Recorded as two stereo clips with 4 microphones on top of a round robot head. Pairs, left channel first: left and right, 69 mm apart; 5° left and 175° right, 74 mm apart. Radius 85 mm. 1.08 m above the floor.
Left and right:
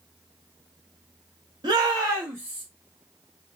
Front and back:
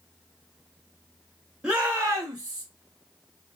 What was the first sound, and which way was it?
A shout, 95° right.